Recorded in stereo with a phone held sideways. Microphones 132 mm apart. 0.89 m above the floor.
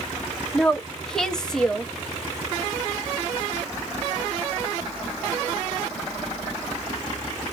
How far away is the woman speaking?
About 0.7 m.